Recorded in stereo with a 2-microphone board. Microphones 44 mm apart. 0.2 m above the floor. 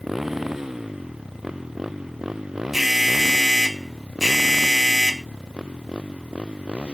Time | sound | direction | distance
0.0 | a motorcycle | 10° right (ahead or behind) | ?
2.7 | an alarm | 5° right (ahead or behind) | ?